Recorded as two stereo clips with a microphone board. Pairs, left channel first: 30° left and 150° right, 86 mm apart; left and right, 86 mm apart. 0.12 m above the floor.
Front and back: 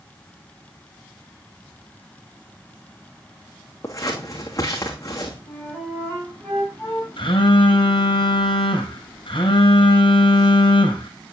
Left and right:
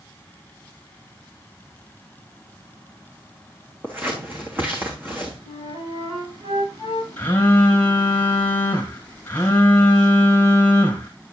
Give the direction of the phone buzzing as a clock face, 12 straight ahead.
11 o'clock.